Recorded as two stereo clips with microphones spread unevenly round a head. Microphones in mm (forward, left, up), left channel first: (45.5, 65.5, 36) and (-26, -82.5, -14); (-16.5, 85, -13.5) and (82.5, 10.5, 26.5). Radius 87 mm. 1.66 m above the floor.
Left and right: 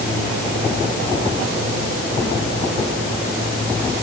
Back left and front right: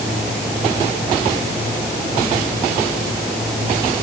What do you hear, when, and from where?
Only background noise.